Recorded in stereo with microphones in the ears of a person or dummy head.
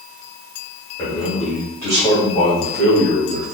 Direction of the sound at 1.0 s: 15° left (ahead or behind).